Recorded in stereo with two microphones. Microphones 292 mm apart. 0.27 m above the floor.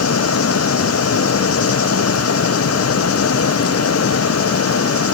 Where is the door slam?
No door slam in this recording.